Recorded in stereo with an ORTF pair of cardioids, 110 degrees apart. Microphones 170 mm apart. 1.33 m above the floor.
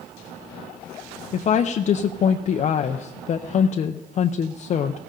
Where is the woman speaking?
45° left, 0.6 m.